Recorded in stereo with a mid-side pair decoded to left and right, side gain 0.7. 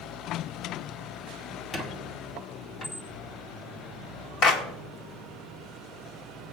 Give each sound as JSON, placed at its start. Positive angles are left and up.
{"t": 1.7, "sound": "a squeak", "azimuth_deg": 30, "distance_m": 2.0}
{"t": 4.4, "sound": "a clap", "azimuth_deg": 45, "distance_m": 1.4}